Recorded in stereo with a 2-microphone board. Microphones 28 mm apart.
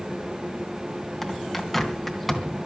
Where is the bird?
Centre (ahead or behind), 2.5 m.